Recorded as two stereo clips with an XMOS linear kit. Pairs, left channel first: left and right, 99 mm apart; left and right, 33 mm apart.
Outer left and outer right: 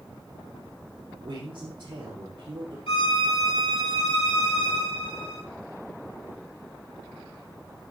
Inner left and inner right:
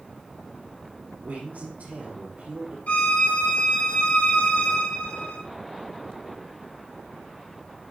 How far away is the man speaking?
About 4.5 m.